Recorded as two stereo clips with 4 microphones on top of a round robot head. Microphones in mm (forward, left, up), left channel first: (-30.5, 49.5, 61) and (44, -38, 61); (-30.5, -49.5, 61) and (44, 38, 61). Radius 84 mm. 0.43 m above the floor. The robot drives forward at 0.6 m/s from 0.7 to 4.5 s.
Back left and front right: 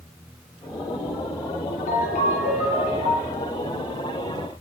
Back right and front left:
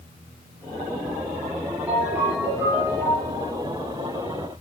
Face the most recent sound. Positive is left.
turn(degrees=135)